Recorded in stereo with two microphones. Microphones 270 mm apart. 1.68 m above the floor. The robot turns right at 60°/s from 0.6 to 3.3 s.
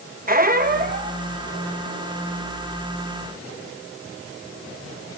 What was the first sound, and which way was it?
A squeak, 90° right.